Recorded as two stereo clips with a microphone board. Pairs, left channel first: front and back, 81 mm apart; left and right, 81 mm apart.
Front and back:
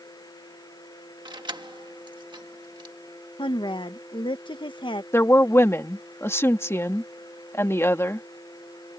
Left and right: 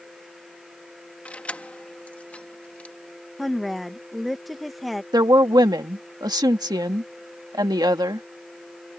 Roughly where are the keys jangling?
Behind.